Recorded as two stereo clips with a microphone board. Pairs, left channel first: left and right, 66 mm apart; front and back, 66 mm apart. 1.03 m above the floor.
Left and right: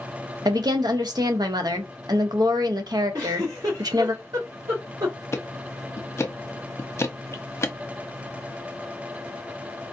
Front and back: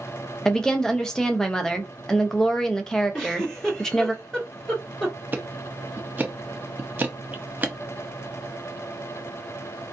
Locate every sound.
0.5 s a woman speaking: 80° right, 0.8 m
3.1 s a giggle: 75° right, 2.5 m
5.3 s ticking: 125° left, 0.6 m